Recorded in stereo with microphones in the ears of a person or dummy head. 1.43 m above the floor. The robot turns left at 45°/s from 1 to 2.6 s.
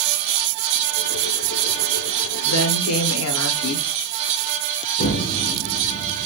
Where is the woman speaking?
80° left, 0.6 m; by 3.9 s 85° left, 0.6 m.